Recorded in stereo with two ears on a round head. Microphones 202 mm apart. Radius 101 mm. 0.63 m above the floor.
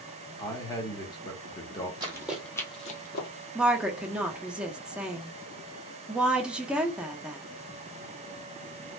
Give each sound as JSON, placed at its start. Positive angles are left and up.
{"t": 0.4, "sound": "a man speaking", "side_deg": 20, "distance_m": 1.0}
{"t": 2.0, "sound": "running footsteps", "side_deg": -20, "distance_m": 1.5}
{"t": 3.5, "sound": "a woman speaking", "side_deg": -5, "distance_m": 0.6}